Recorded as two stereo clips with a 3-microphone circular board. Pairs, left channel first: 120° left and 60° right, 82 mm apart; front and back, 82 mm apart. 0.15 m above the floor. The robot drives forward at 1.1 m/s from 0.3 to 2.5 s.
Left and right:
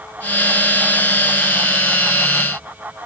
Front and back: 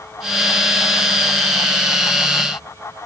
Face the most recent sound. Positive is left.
No sound to turn to.